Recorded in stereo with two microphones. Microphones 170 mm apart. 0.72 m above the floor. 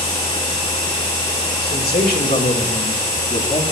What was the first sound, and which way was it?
A man speaking, 65° left (ahead or behind).